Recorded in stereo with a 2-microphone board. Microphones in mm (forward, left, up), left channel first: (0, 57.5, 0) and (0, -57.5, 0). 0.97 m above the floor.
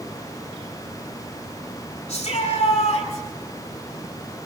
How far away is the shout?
About 8.5 m.